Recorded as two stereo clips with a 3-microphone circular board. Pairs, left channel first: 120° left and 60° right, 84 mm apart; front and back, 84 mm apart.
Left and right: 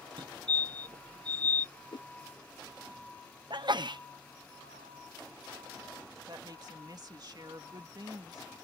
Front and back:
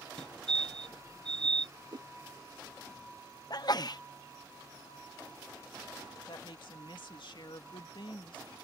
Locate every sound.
0.2 s a fire alarm: 80° right
1.9 s a whoosh: 150° left
3.5 s a sneeze: 35° right
6.3 s a woman speaking: 20° right